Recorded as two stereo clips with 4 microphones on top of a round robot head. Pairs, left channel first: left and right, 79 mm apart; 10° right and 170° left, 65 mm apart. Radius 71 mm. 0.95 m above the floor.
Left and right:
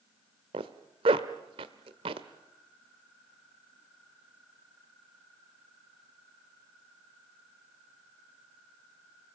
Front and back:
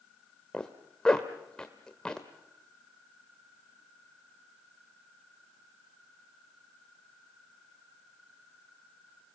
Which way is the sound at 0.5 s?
90° right.